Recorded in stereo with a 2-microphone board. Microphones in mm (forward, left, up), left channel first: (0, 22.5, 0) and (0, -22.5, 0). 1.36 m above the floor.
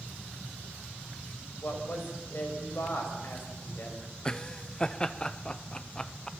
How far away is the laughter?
About 1.0 m.